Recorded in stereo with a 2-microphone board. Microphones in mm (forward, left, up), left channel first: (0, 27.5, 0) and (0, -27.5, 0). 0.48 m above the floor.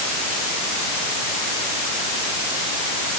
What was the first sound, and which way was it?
Only background noise.